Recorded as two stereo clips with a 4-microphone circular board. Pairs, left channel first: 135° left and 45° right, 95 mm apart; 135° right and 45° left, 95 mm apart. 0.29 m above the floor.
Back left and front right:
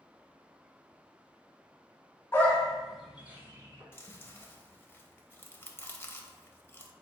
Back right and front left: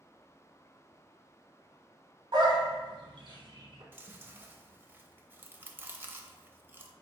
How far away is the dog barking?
About 1.0 m.